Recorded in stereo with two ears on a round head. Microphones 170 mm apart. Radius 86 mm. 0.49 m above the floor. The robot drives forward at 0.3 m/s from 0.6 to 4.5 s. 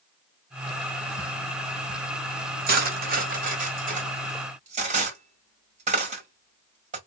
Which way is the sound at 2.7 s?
55° right (ahead or behind).